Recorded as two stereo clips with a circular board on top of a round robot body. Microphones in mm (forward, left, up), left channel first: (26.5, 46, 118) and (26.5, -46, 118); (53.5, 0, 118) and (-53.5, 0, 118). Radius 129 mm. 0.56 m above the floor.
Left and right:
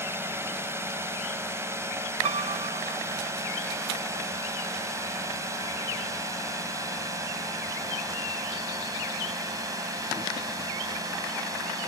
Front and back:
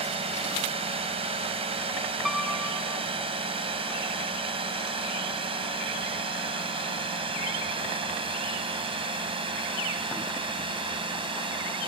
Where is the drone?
155° right; by 11.9 s 140° right.